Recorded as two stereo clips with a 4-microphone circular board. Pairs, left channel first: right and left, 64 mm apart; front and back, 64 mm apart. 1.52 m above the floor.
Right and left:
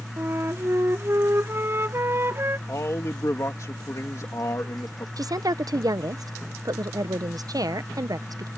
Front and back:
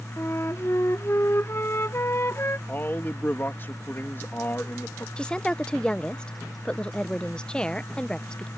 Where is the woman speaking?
75° left.